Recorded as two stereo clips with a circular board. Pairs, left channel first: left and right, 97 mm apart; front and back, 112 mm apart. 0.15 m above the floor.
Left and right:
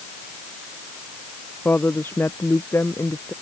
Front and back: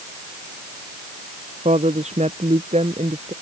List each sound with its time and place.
1.6 s a woman speaking: 160° left; by 3.3 s 150° left